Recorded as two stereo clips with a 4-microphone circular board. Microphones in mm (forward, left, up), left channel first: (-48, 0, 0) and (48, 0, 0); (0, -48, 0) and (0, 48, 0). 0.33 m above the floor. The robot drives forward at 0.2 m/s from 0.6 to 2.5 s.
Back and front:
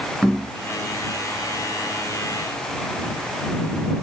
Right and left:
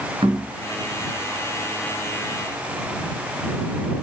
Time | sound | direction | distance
0.2 | knocking | 95° left | 3.5 m